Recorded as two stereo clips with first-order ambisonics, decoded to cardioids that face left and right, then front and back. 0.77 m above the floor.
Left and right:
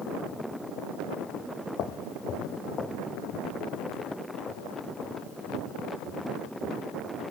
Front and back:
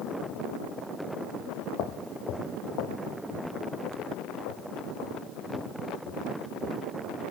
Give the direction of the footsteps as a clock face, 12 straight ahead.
11 o'clock.